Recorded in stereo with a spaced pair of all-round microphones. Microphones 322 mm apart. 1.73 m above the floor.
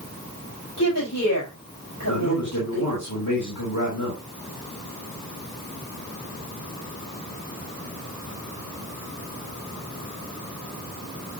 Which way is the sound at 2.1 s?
85° left.